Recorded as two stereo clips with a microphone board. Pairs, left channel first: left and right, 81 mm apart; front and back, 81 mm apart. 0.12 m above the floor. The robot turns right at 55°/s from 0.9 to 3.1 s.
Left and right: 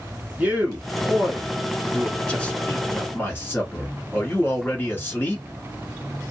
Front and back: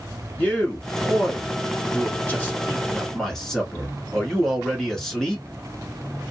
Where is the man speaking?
45° right, 1.3 m; by 5.5 s 75° left, 1.3 m.